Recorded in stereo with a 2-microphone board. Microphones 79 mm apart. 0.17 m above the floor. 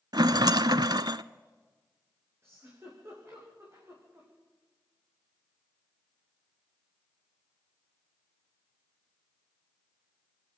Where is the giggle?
35° right (ahead or behind), 8 m.